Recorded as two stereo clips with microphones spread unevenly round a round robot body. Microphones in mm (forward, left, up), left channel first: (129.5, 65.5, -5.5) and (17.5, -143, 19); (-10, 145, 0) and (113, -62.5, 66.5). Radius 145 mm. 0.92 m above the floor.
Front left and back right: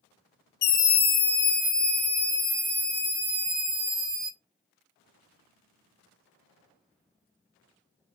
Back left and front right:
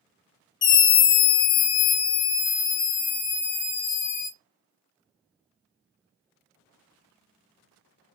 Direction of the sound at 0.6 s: 105° left.